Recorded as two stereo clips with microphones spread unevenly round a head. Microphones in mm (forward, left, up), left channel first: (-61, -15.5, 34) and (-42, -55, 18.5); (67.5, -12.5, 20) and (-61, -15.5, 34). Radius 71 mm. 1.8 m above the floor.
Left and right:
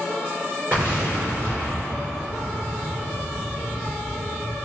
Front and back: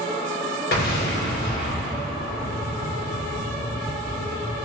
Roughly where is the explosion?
Ahead.